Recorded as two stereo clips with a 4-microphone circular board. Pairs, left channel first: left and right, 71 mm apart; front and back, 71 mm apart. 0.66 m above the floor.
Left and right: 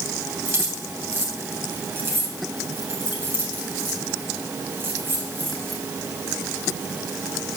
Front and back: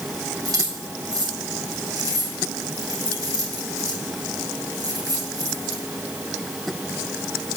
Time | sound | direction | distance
0.5 | keys jangling | 150° right | 3.5 m